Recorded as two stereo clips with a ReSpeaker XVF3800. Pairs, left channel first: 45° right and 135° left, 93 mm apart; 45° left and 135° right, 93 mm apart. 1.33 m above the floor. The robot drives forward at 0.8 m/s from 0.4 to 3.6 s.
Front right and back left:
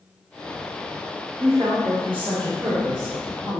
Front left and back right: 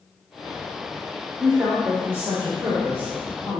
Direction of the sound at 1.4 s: 145° left.